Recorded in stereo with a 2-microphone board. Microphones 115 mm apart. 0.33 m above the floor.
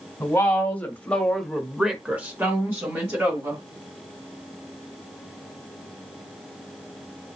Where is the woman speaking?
15° left (ahead or behind), 1.8 m; by 3.6 s 25° right (ahead or behind), 1.7 m.